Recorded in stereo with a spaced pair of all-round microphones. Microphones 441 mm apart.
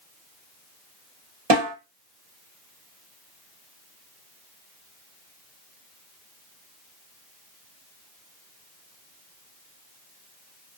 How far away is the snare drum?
About 1.0 m.